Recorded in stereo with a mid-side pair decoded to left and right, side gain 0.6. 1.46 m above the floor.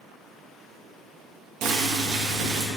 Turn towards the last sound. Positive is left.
turn(degrees=-65)